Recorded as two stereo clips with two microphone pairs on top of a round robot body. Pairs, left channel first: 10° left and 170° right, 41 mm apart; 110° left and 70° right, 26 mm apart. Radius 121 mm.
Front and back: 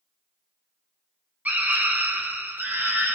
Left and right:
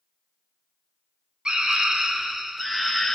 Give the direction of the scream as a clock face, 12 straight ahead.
5 o'clock.